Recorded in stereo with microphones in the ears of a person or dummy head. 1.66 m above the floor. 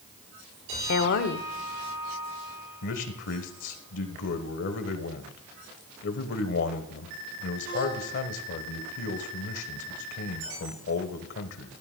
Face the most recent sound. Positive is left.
turn(degrees=60)  # may be behind; listen again after turning